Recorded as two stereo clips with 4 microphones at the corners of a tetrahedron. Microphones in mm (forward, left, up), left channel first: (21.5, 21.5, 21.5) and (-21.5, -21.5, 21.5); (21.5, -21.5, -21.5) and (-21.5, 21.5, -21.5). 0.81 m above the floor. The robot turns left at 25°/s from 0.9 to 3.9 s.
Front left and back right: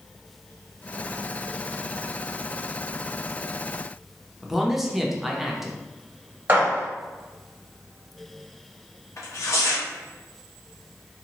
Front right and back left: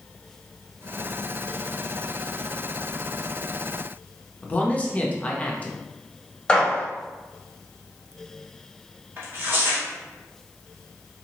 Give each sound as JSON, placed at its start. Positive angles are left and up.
{"t": 4.4, "sound": "a man speaking", "azimuth_deg": -55, "distance_m": 0.6}
{"t": 6.5, "sound": "a gunshot", "azimuth_deg": -110, "distance_m": 1.1}
{"t": 9.2, "sound": "tearing paper", "azimuth_deg": 85, "distance_m": 0.9}